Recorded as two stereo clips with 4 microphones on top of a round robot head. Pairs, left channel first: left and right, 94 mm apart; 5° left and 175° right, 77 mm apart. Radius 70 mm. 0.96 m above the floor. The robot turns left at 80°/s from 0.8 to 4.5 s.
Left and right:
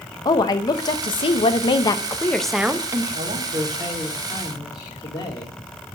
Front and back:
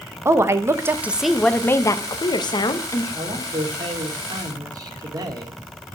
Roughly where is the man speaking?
Right.